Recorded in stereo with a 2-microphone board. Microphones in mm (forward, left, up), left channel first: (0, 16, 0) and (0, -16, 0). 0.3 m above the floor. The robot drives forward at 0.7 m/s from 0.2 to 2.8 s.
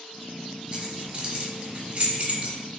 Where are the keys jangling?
30° right (ahead or behind), 1.5 m; by 2.5 s 40° right (ahead or behind), 1.2 m.